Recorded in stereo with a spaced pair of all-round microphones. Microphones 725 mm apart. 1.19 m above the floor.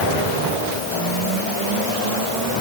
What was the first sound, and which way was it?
Only background noise.